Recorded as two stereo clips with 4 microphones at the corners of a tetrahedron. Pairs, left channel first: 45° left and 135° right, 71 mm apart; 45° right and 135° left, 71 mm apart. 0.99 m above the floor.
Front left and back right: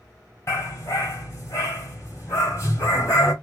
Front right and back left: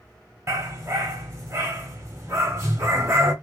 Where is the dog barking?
90° left, 1.8 m.